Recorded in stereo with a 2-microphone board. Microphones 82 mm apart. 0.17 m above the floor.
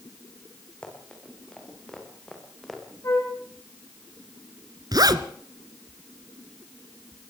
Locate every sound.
0.8 s running footsteps: 10° left (ahead or behind), 7.5 m; by 2.8 s centre (ahead or behind), 5.5 m
3.0 s a flute: 40° left (ahead or behind), 9.5 m
4.9 s a zipper: 55° right (ahead or behind), 1.2 m